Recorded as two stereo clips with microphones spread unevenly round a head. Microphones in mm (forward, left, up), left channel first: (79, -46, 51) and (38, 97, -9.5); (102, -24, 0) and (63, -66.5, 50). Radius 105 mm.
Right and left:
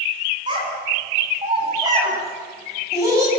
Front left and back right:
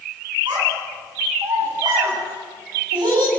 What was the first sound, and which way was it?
A child speaking, 175° left.